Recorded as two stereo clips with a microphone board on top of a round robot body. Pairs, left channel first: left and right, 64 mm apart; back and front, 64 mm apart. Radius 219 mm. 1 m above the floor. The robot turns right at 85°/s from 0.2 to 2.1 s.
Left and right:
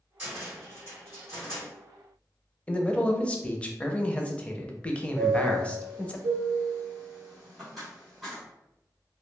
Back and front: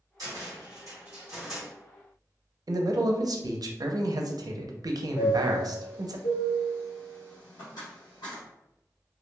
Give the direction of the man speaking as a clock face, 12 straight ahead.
11 o'clock.